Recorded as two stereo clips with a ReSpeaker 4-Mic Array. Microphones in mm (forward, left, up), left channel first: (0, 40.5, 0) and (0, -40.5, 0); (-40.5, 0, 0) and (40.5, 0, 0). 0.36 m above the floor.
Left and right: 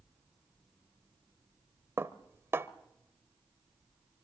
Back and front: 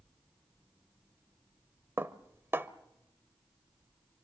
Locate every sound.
2.0 s dishes clattering: 45° right, 0.9 m